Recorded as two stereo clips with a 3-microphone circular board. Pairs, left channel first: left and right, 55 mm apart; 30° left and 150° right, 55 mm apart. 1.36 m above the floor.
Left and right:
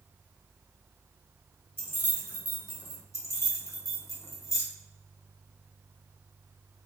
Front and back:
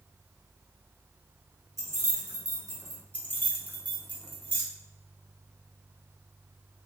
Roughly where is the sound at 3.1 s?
Left.